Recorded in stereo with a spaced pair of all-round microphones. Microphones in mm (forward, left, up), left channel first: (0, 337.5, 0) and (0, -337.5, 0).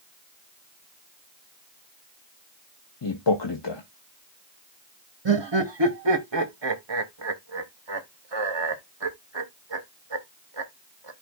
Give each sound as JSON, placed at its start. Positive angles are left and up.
{"t": 3.0, "sound": "a man speaking", "side_deg": 40, "distance_m": 1.0}
{"t": 5.2, "sound": "laughter", "side_deg": -40, "distance_m": 0.9}